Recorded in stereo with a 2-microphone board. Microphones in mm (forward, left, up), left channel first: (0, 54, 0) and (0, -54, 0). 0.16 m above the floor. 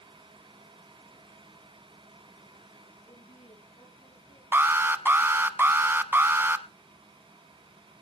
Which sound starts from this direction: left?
A woman speaking, at 3.1 s.